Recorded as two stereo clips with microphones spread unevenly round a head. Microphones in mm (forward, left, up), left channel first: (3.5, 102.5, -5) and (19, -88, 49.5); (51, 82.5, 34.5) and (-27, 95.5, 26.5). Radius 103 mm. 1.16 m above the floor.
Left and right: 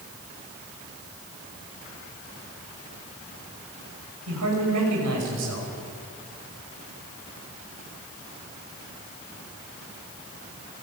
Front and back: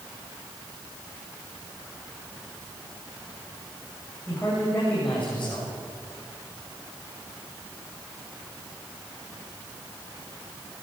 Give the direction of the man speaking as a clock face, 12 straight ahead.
3 o'clock.